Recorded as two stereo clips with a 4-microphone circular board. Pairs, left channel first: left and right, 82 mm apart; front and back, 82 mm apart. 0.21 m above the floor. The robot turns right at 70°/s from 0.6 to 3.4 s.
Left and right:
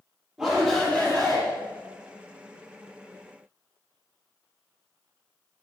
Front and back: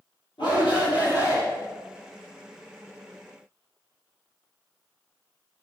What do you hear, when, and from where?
0.4 s a shout: 15° right, 3.5 m; by 1.4 s 40° left, 3.5 m